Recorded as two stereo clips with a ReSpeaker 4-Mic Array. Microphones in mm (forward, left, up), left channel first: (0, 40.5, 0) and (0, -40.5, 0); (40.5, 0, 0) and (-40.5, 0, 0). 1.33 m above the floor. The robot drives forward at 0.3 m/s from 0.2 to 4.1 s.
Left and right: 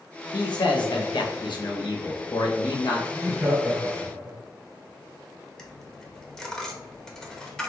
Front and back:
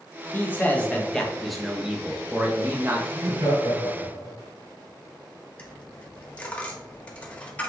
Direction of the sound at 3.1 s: 150° right.